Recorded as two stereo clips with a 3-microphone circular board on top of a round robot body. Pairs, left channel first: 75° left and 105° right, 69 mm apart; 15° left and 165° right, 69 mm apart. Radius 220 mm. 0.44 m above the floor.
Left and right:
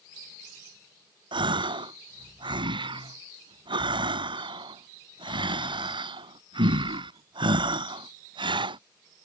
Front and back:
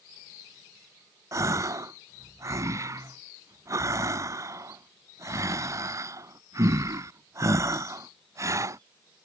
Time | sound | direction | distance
1.3 | a gasp | 115° right | ?